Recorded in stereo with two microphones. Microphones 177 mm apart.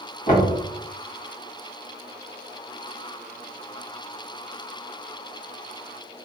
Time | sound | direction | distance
0.3 | knocking | 45° left (ahead or behind) | 1.1 m